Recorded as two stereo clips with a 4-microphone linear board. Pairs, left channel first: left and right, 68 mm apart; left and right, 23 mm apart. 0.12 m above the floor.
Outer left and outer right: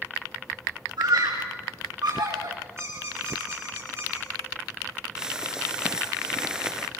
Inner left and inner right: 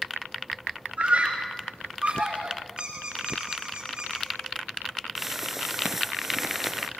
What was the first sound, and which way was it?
A scream, 80° right.